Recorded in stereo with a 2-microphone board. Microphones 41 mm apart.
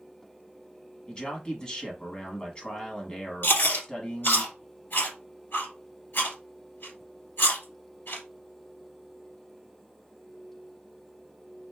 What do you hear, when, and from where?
1.1 s a man speaking: 25° left (ahead or behind), 1.2 m
3.4 s chewing: 60° left (ahead or behind), 2.5 m